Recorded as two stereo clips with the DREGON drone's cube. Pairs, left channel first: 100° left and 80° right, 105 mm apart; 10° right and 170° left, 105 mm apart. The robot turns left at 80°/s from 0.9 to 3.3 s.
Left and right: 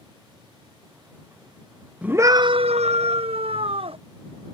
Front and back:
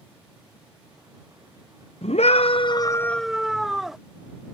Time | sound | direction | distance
2.0 | a scream | straight ahead | ?